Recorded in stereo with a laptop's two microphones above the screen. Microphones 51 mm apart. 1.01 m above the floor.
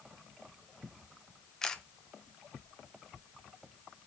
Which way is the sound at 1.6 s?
10° left (ahead or behind).